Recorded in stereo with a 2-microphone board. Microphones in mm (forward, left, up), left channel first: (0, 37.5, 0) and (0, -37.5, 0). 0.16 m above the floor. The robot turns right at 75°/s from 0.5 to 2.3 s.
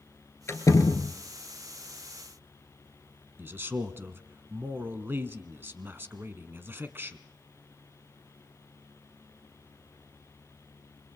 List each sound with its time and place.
0.5 s a door slam: 45° left, 1.7 m; by 1.1 s 90° left, 1.7 m
3.4 s a man speaking: 30° right (ahead or behind), 1.3 m